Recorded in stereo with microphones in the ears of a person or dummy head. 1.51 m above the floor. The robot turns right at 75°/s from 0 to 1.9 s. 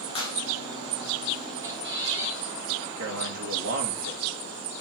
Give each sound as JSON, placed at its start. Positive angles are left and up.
{"t": 0.1, "sound": "a clap", "side_deg": 30, "distance_m": 4.0}
{"t": 1.6, "sound": "a squeak", "side_deg": -20, "distance_m": 1.6}
{"t": 3.0, "sound": "a man speaking", "side_deg": -85, "distance_m": 2.5}